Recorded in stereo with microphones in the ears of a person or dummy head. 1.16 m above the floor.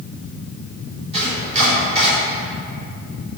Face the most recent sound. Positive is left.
turn(degrees=-35)  # may be behind; listen again after turning